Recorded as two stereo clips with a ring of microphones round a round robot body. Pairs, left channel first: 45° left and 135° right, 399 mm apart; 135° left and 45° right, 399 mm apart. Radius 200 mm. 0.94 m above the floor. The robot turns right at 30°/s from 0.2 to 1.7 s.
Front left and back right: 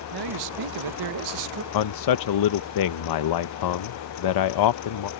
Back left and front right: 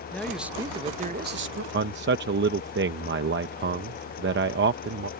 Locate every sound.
0.1 s a man speaking: 140° right; by 1.6 s 95° right
1.7 s a man speaking: 15° left